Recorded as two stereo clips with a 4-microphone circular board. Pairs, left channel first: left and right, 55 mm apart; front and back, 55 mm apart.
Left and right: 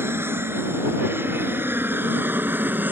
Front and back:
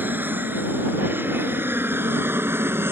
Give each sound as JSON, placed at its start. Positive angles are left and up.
{"t": 0.0, "sound": "an aircraft", "azimuth_deg": -130}